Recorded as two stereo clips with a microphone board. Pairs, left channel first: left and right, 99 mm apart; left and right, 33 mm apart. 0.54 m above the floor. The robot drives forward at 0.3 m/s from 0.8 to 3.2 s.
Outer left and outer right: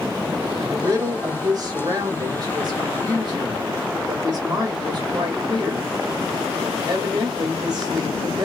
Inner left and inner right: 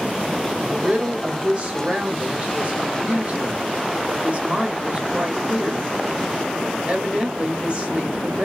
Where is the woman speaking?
35° right (ahead or behind), 1.3 m; by 8.4 s 45° right (ahead or behind), 1.1 m.